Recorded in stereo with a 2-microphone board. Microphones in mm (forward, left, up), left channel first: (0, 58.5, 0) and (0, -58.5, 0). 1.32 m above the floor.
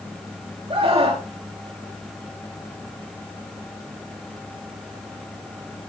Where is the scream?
55° right (ahead or behind), 3.5 m.